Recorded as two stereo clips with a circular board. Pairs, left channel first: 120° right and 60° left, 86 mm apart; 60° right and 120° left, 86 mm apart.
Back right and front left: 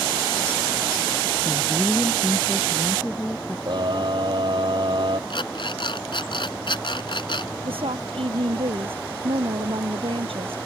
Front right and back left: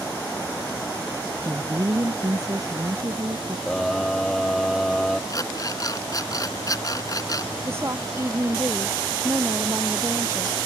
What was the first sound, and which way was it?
A woman speaking, 165° left.